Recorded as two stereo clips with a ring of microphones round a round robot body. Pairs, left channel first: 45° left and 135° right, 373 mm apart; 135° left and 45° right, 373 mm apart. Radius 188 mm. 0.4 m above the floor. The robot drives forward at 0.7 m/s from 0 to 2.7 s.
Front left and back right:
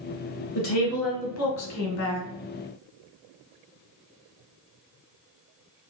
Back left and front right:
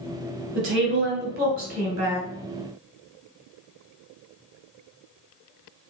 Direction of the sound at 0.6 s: 10° left.